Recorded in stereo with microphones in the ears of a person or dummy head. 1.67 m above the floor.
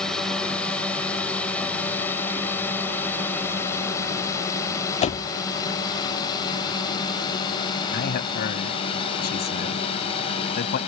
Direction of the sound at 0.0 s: 5° left (ahead or behind).